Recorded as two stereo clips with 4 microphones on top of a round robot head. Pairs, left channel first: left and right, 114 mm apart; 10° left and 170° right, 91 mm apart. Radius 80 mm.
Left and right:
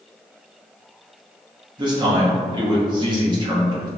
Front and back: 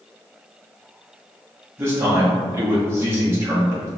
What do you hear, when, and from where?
1.8 s a man speaking: 120° right, 1.1 m